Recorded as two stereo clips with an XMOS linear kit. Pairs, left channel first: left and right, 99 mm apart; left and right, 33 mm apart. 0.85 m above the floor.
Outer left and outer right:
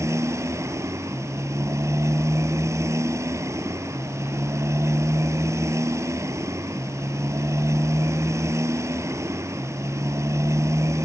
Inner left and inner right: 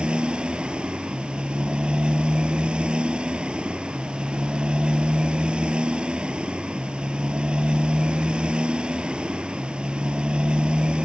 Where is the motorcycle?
30° right (ahead or behind).